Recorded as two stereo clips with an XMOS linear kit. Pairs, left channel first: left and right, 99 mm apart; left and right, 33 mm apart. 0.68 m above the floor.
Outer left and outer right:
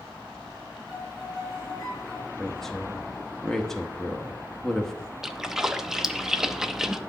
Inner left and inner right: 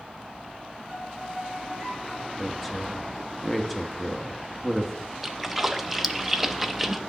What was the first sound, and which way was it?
A violin, centre (ahead or behind).